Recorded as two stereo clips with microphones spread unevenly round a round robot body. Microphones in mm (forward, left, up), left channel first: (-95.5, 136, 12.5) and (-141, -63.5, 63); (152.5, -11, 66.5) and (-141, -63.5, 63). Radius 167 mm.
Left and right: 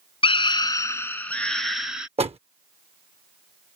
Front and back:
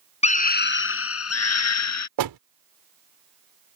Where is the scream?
65° left; by 2.1 s 10° right.